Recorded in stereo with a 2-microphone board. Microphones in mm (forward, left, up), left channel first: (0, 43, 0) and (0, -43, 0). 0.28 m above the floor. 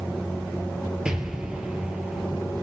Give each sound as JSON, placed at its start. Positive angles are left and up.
{"t": 1.1, "sound": "an explosion", "side_deg": -10, "distance_m": 2.0}